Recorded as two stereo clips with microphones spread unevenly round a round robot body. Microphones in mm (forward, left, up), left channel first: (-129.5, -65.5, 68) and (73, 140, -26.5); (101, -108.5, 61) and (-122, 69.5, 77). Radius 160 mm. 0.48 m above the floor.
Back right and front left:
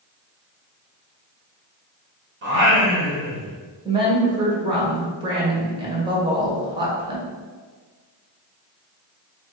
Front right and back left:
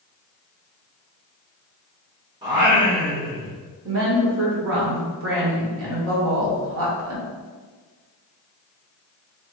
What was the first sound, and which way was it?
Singing, 65° left.